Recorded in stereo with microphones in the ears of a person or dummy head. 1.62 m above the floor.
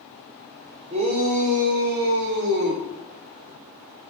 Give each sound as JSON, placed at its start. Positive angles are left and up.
{"t": 0.9, "sound": "a shout", "side_deg": -35, "distance_m": 5.5}